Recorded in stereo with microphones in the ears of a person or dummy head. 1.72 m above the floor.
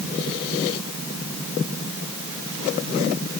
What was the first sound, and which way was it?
Only background noise.